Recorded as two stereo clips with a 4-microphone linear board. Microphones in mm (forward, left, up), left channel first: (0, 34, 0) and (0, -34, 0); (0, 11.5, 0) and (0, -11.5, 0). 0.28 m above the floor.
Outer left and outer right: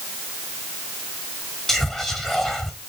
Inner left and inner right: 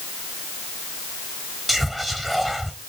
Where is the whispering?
5° left (ahead or behind), 1.0 m.